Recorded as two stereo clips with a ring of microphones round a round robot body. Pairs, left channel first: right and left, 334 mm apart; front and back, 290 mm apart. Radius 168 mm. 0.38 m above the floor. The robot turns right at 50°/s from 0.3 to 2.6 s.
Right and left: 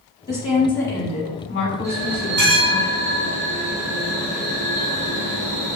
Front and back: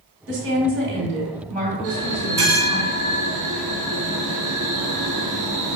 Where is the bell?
135° left, 2 m; by 5.8 s 175° left, 2 m.